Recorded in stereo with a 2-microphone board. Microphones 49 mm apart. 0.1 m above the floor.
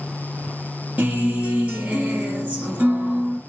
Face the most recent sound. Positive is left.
turn(degrees=-25)  # may be behind; listen again after turning